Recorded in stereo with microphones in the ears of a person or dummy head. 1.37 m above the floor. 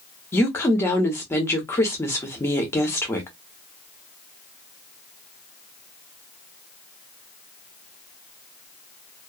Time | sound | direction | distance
0.3 | a woman speaking | 10° left (ahead or behind) | 0.8 m